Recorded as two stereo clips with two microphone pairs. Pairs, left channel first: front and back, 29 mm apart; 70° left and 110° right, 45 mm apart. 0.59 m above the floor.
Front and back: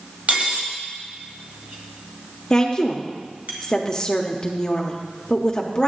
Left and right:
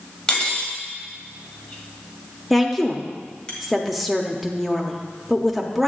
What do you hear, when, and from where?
0.3 s cutlery clinking: 140° left, 1.7 m
2.5 s a woman speaking: 15° right, 0.8 m